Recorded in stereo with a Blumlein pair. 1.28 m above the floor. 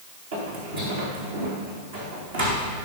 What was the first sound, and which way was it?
Footsteps, 60° right.